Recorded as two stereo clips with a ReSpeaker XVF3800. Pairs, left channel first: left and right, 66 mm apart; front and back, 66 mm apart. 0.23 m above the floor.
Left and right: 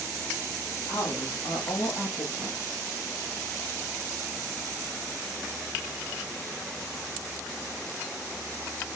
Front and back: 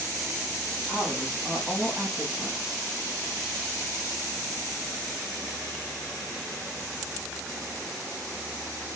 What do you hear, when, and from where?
0.9 s a woman speaking: 90° left, 6.5 m; by 2.9 s 80° left, 6 m